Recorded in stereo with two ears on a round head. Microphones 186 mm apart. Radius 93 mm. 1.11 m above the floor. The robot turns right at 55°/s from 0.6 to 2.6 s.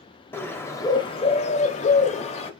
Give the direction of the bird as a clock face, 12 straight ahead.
11 o'clock.